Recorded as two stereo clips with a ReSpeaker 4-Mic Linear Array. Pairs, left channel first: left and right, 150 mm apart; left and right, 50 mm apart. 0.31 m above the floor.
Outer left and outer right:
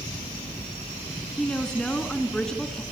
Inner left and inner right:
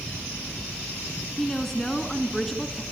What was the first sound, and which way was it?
A woman speaking, 5° left (ahead or behind).